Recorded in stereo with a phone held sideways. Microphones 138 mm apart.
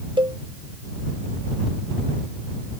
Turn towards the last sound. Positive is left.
turn(degrees=-35)  # may be behind; listen again after turning